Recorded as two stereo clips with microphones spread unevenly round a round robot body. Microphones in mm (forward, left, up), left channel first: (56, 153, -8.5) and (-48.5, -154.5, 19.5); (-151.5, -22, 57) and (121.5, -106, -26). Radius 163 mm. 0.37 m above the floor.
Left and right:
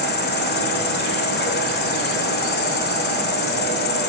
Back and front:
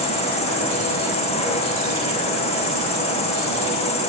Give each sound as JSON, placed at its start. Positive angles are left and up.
{"t": 0.0, "sound": "an insect", "azimuth_deg": 85, "distance_m": 0.8}